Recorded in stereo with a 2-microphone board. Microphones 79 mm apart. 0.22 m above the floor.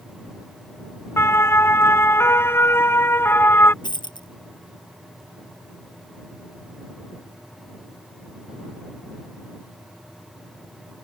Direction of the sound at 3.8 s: 80° left.